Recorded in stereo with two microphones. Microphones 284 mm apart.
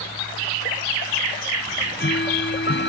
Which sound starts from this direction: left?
Ticking, at 1.7 s.